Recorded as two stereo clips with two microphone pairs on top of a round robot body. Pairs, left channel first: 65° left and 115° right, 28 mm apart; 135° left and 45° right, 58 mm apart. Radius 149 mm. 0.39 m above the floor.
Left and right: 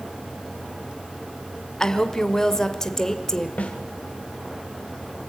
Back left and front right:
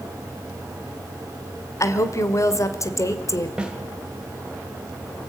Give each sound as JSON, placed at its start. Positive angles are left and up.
{"t": 1.8, "sound": "a woman speaking", "azimuth_deg": 140, "distance_m": 1.6}
{"t": 3.6, "sound": "a snare drum", "azimuth_deg": 30, "distance_m": 2.5}